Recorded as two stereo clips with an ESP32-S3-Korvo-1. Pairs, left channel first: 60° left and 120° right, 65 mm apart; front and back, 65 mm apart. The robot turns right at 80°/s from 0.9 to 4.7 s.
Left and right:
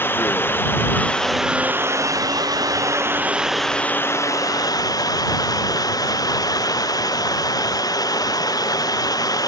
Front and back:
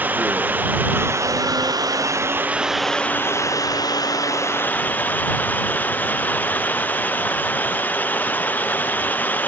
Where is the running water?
115° left; by 9.5 s 60° left.